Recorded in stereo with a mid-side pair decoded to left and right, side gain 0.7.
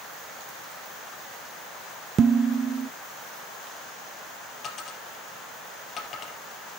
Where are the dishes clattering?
35° right, 0.6 m.